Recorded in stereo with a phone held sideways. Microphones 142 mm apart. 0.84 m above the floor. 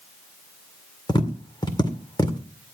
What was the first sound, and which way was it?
Tapping, 30° left (ahead or behind).